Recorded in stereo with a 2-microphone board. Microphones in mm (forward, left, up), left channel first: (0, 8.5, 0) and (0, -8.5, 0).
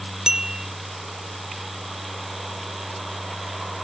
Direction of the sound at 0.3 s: 40° right (ahead or behind).